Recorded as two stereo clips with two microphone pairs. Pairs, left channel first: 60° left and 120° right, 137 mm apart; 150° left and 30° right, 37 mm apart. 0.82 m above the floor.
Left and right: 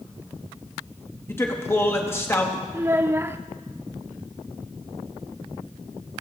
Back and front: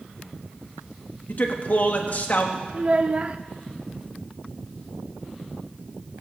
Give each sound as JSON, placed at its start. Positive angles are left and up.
{"t": 1.3, "sound": "a man speaking", "azimuth_deg": 125, "distance_m": 1.1}
{"t": 2.7, "sound": "a child speaking", "azimuth_deg": -65, "distance_m": 0.5}